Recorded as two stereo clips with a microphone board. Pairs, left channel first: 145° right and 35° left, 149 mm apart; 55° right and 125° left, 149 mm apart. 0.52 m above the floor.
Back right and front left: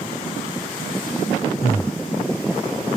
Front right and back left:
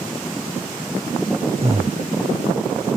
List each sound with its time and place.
1.6 s breathing: 150° left, 0.8 m